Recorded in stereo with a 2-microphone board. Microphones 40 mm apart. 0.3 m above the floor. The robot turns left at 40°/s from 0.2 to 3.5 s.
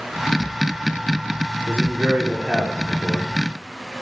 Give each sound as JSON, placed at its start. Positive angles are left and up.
{"t": 1.7, "sound": "a man speaking", "azimuth_deg": -150, "distance_m": 5.5}